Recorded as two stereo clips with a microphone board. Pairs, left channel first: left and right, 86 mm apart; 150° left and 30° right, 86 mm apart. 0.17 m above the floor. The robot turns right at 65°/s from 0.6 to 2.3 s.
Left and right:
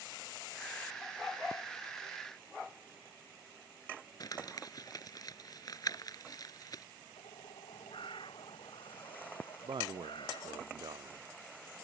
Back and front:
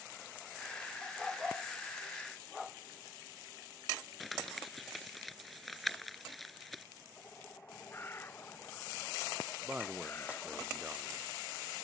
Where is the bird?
90° left.